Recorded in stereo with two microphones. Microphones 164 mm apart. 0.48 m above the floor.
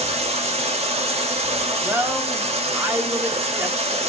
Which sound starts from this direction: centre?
A woman speaking, at 1.8 s.